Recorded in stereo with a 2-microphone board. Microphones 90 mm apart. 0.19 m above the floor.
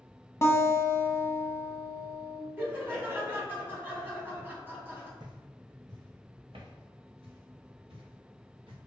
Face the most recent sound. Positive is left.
turn(degrees=-85)